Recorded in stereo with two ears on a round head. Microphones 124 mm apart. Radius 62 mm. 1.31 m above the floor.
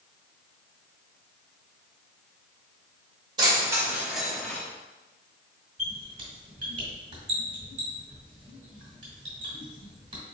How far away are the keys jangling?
About 1.2 m.